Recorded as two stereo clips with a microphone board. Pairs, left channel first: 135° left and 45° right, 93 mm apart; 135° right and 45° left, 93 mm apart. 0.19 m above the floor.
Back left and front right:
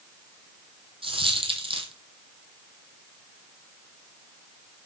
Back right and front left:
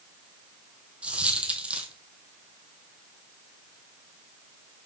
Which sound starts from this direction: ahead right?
A dropped coin, at 1.0 s.